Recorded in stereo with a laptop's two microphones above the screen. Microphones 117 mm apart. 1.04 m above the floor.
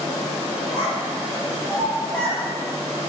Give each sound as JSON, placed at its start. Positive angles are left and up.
{"t": 0.7, "sound": "a child speaking", "side_deg": -25, "distance_m": 0.8}